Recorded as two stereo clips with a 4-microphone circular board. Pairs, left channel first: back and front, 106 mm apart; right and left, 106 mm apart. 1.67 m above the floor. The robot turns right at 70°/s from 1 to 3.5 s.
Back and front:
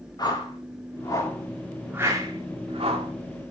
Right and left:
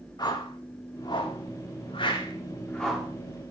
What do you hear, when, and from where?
0.2 s a whoosh: 135° right, 2 m; by 3.1 s 10° left, 2 m